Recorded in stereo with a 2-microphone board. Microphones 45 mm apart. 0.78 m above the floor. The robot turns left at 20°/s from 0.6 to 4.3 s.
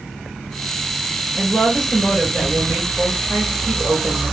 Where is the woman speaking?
5° right, 4.5 m; by 4.3 s 60° right, 4.5 m.